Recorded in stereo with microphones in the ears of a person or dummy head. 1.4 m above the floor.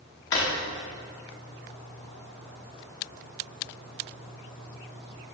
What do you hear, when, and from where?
0.3 s a drawer: 15° left (ahead or behind), 0.6 m